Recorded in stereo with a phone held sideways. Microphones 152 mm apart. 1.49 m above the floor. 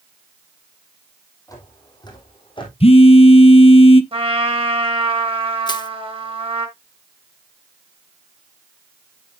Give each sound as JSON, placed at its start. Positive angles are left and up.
{"t": 1.5, "sound": "footsteps", "side_deg": 25, "distance_m": 3.0}
{"t": 2.8, "sound": "a phone buzzing", "side_deg": 45, "distance_m": 0.6}
{"t": 4.1, "sound": "a trumpet", "side_deg": -40, "distance_m": 1.7}
{"t": 5.7, "sound": "crushing", "side_deg": 30, "distance_m": 0.8}